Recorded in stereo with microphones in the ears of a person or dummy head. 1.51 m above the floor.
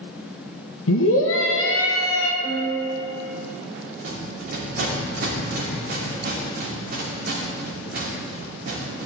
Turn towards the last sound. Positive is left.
turn(degrees=-60)  # may be behind; listen again after turning